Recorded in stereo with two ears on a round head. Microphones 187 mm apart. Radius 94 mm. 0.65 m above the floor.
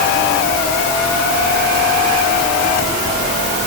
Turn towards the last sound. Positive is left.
No sound to turn to.